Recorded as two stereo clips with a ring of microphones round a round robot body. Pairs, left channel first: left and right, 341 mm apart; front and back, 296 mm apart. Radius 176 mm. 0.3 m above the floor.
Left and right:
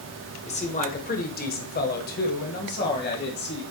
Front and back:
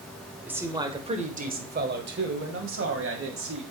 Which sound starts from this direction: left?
A man speaking, at 0.5 s.